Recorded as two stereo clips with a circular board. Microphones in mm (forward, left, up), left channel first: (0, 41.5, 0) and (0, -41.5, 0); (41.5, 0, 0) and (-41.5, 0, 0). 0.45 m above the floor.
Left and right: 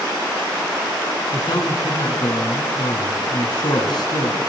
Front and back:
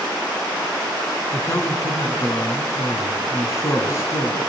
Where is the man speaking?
55° left, 5 m.